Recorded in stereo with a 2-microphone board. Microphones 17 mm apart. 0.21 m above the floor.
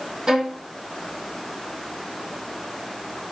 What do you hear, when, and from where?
0.3 s a violin: 55° right (ahead or behind), 3 m